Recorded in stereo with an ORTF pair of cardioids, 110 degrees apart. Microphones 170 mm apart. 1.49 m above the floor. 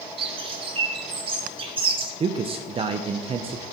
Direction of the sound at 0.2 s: 35° right.